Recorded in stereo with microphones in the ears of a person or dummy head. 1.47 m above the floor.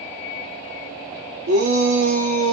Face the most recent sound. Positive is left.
turn(degrees=-85)